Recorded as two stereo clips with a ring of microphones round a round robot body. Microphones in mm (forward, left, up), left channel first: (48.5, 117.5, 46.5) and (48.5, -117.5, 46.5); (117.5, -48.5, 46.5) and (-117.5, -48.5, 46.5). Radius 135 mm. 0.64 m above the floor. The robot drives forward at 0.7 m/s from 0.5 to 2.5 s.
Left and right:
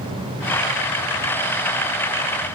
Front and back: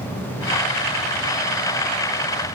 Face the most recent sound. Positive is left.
No sound to turn to.